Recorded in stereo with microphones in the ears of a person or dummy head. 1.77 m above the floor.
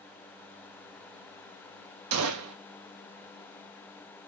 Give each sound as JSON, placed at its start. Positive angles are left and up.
{"t": 2.1, "sound": "a gunshot", "side_deg": -80, "distance_m": 0.6}